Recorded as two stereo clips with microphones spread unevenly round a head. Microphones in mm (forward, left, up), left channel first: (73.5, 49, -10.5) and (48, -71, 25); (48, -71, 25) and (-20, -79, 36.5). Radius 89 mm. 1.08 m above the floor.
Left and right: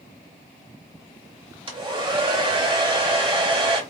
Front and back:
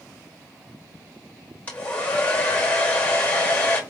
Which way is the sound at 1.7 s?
55° right.